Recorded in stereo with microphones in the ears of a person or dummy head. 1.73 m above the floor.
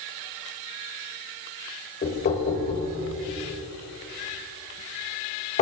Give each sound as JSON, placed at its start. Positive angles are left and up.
{"t": 2.0, "sound": "knocking", "side_deg": 30, "distance_m": 2.0}